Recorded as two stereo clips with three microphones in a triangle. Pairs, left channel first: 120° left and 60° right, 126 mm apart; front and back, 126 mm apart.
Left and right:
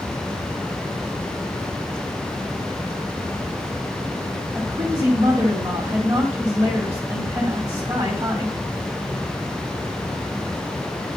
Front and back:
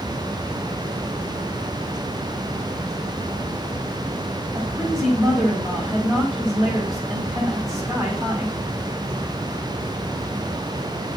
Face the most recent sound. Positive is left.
turn(degrees=-115)